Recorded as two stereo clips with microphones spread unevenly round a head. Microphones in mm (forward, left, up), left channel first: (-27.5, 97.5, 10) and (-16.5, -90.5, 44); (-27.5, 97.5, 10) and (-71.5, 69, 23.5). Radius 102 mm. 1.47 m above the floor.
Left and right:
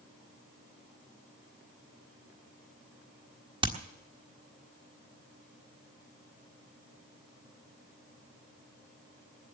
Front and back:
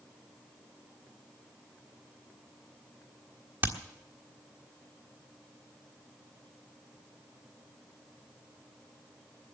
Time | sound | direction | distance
3.6 | hammering | 135° right | 1.4 m